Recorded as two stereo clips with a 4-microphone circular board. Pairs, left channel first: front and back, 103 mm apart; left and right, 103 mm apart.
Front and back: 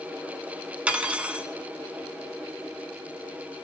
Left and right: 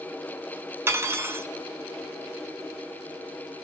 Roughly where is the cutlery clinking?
Behind right.